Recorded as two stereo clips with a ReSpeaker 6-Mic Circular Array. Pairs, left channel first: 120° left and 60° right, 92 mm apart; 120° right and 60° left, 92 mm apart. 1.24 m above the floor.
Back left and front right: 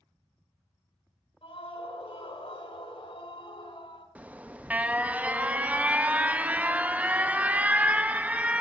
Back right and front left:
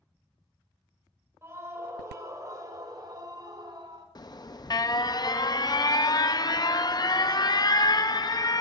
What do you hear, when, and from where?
1.4 s a scream: 120° left, 4.5 m; by 4.0 s 100° left, 4 m
4.2 s an alarm: 125° right, 0.6 m